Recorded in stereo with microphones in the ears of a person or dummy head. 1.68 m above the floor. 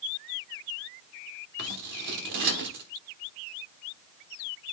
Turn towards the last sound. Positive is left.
turn(degrees=-50)  # may be behind; listen again after turning